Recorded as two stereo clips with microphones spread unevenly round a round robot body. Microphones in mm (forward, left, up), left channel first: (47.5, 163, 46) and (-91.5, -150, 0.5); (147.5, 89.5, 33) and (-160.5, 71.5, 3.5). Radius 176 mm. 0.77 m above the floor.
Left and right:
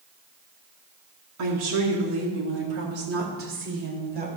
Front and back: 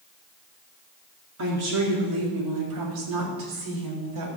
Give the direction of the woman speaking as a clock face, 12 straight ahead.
5 o'clock.